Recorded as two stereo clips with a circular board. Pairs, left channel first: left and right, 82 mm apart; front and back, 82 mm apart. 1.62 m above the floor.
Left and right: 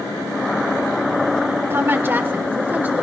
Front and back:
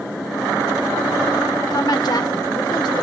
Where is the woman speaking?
30° right, 1.2 m; by 3.0 s 20° right, 1.9 m.